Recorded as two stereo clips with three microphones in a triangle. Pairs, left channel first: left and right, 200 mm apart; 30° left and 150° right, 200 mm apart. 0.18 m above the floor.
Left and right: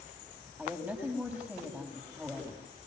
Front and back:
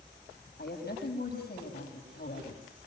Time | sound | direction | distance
0.6 | a woman speaking | 10° right | 8 m